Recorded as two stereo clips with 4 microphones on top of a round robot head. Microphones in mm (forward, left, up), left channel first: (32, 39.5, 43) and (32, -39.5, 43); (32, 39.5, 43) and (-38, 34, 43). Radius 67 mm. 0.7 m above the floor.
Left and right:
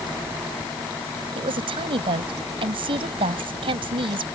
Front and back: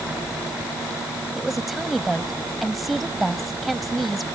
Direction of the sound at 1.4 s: 85° right.